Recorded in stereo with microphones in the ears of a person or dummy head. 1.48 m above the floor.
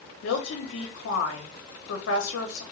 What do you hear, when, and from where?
0.2 s a woman speaking: 80° left, 0.7 m